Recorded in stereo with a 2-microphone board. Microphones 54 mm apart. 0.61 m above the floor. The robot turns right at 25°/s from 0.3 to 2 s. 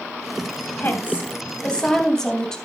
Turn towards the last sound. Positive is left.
turn(degrees=170)